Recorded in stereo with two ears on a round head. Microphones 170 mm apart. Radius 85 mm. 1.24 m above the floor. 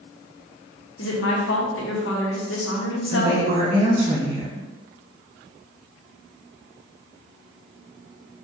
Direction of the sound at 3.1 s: 30° right (ahead or behind).